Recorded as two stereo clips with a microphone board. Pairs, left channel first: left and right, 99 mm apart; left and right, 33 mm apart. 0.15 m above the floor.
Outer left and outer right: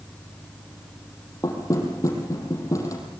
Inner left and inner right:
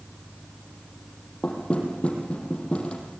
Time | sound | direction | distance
1.4 | knocking | 30° left (ahead or behind) | 5 m